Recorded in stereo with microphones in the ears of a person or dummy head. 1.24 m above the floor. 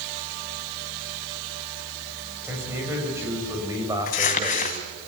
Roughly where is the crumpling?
Left.